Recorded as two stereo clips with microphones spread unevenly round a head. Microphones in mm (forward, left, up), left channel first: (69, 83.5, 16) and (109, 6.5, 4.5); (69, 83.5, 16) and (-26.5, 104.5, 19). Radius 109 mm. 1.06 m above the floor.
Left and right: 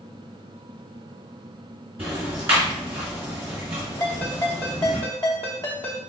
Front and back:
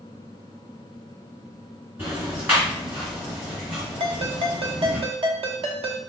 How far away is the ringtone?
About 0.8 m.